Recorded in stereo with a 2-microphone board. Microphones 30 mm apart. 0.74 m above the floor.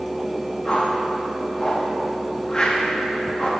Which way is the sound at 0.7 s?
25° left (ahead or behind).